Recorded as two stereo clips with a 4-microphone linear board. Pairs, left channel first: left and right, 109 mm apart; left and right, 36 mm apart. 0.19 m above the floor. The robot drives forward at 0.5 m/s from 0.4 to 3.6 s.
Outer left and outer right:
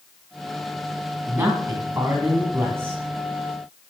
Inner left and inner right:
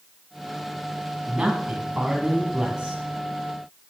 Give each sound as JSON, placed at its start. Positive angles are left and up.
{"t": 1.3, "sound": "a man speaking", "side_deg": -20, "distance_m": 1.8}